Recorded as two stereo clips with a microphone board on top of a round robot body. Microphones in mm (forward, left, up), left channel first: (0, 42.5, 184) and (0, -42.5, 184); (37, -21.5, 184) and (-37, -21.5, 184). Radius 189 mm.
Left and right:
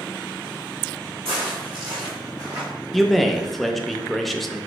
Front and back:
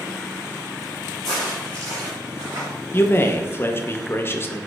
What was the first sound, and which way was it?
Footsteps, 90° right.